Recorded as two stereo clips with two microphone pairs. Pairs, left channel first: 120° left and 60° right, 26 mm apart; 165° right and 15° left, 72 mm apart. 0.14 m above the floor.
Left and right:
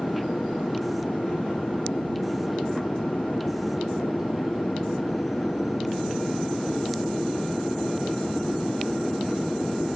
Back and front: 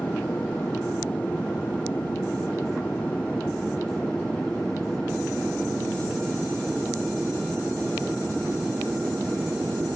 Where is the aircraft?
130° left; by 9.9 s 85° left.